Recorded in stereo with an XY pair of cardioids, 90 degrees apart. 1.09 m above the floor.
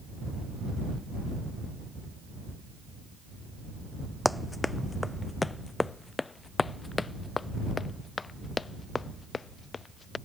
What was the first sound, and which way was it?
Running footsteps, 10° left.